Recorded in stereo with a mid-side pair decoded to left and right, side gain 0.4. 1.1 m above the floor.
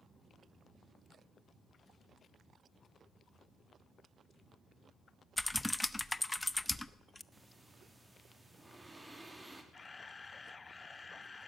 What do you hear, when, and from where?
5.4 s typing on a keyboard: 15° left, 0.6 m
7.3 s breathing: 15° right, 3 m
9.7 s a camera shutter: 30° left, 0.7 m